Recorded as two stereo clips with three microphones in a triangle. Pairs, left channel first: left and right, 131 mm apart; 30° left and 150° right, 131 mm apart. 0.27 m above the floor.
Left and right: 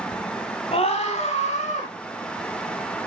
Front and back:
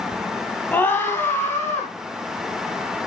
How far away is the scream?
About 1.4 m.